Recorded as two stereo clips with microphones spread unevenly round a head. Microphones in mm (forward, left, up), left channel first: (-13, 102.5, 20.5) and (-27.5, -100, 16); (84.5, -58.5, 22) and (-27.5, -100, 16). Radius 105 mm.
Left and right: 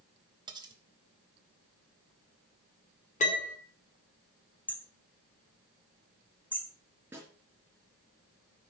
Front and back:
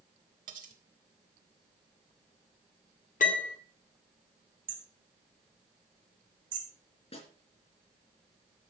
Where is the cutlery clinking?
165° right, 2.0 m.